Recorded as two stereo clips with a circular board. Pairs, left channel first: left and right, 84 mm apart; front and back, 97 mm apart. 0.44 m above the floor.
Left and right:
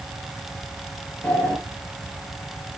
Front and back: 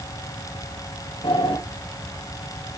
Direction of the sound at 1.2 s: 15° left.